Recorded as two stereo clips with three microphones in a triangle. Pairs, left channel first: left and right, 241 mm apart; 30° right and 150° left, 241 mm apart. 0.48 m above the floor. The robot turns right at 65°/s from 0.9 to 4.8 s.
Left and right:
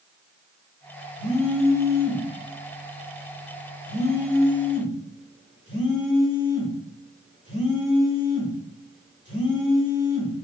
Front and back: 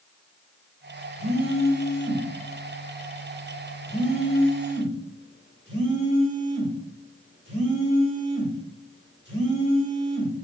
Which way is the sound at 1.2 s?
115° right.